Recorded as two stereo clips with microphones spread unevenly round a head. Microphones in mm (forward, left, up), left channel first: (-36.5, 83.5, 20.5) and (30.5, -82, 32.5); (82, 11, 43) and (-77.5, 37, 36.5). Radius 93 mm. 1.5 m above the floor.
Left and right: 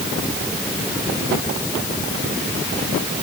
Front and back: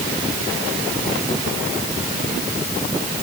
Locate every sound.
Only background noise.